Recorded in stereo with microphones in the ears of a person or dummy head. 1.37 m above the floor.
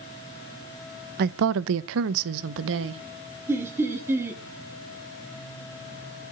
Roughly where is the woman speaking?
Right.